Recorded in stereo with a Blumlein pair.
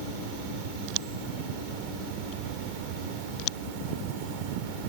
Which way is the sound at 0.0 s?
45° right.